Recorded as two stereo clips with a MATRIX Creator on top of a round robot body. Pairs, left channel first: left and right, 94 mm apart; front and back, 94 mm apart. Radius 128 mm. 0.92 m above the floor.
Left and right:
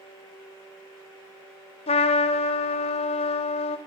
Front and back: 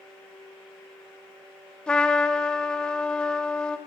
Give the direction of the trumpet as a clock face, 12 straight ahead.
9 o'clock.